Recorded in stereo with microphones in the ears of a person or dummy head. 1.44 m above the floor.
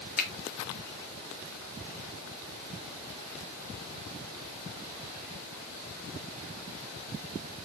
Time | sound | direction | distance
0.2 | a finger snap | 50° left (ahead or behind) | 1.7 m